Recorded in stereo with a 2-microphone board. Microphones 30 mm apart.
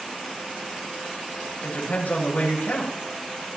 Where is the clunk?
No clunk in this recording.